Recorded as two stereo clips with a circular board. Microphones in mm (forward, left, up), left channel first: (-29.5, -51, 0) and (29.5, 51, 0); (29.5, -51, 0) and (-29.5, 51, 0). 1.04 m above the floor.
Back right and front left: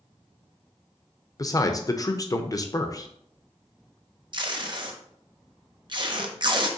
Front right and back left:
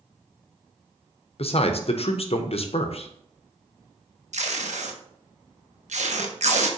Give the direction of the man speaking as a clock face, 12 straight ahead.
2 o'clock.